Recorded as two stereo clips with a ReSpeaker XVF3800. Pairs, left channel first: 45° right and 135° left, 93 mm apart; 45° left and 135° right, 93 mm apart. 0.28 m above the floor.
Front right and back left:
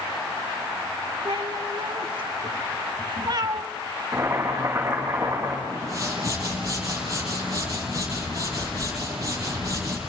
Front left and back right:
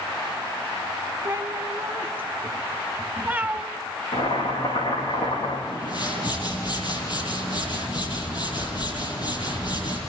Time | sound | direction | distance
1.2 | a cat meowing | 160° left | 2.5 m
4.1 | boiling | 70° left | 10 m
5.7 | a whoosh | 80° left | 7 m